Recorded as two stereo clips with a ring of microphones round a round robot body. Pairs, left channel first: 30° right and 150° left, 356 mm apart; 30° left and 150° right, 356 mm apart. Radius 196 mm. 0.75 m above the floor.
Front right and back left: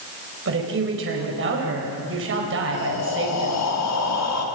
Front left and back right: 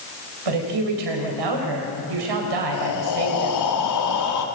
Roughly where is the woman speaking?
Behind right.